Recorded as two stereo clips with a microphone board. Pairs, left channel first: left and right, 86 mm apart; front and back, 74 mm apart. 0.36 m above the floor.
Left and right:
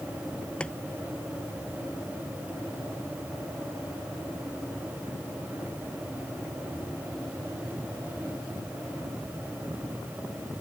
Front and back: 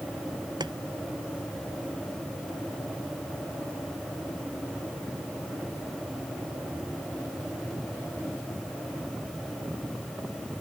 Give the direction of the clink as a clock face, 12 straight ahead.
I don't hear a clink.